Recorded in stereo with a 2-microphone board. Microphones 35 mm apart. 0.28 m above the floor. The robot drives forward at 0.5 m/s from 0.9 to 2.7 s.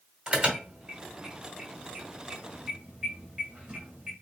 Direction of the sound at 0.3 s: 25° right (ahead or behind).